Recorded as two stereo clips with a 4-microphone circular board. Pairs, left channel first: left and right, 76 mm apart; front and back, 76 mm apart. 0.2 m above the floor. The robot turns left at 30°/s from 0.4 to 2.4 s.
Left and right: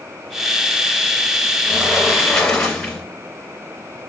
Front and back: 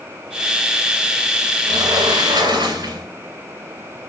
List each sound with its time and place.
1.7 s a sliding door: 165° right, 0.9 m; by 3.1 s 175° left, 0.9 m